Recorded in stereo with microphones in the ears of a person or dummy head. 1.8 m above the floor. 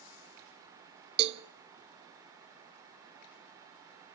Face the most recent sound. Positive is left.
turn(degrees=-30)  # may be behind; listen again after turning